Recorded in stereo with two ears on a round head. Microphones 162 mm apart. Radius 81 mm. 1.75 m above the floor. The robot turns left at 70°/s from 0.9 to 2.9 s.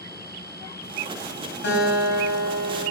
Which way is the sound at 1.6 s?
80° left.